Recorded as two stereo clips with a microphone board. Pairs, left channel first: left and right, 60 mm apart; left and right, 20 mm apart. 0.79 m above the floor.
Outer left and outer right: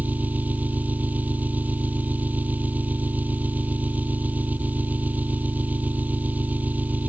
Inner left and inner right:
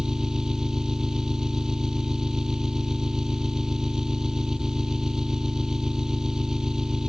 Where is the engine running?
25° right (ahead or behind).